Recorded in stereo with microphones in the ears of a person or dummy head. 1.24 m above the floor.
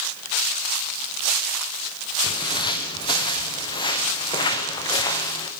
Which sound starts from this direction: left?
Footsteps, at 2.2 s.